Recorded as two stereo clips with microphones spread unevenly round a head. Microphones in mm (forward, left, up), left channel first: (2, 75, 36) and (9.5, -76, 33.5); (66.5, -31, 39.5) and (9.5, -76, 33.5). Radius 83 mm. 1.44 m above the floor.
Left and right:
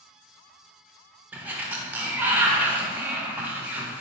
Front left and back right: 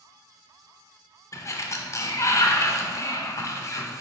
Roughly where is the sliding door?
Ahead.